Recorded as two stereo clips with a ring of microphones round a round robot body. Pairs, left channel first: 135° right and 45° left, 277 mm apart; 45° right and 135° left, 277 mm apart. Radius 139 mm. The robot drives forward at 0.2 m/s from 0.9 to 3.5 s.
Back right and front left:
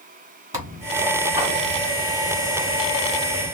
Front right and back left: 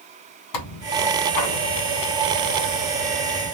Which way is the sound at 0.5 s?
35° right.